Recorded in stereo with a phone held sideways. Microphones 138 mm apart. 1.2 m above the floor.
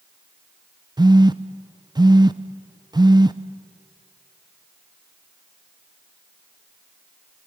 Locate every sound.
1.0 s a phone buzzing: 35° right (ahead or behind), 0.6 m